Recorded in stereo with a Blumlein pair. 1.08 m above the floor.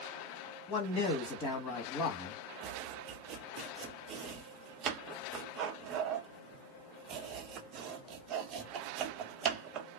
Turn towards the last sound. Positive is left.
turn(degrees=-30)